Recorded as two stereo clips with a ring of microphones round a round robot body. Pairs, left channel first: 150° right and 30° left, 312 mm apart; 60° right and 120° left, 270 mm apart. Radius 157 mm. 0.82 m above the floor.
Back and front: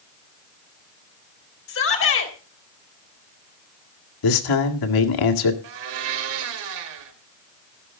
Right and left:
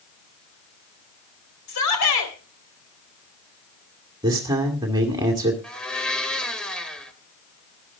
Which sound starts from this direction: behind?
A man speaking, at 4.2 s.